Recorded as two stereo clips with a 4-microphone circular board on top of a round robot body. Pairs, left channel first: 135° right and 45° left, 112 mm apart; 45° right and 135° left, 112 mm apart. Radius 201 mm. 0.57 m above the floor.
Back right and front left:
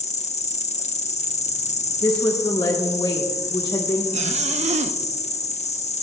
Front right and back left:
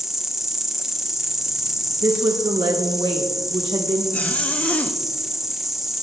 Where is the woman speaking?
175° left, 1.4 m.